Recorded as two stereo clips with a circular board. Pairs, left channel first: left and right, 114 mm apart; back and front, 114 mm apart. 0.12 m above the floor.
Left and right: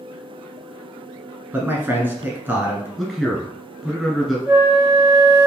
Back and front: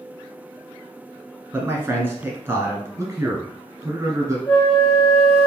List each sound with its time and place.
1.5 s a man speaking: 40° right, 1.2 m
3.0 s a man speaking: 5° left, 1.2 m
4.5 s a flute: 135° right, 1.8 m